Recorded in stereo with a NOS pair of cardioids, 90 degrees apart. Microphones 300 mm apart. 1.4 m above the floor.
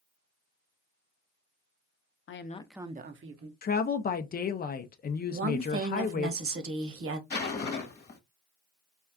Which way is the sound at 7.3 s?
35° left.